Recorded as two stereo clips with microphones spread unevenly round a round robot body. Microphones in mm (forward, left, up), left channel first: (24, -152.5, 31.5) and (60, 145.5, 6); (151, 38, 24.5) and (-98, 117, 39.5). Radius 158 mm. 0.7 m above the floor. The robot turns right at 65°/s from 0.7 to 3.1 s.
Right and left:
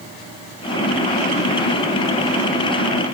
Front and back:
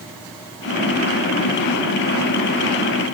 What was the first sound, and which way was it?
Only background noise.